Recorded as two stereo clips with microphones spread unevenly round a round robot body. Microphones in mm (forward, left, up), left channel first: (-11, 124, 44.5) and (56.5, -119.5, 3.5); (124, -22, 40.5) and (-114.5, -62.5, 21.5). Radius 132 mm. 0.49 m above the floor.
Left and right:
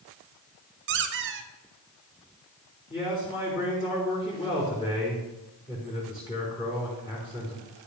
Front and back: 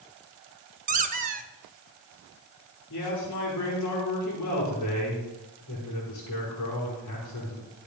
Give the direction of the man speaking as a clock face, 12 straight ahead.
11 o'clock.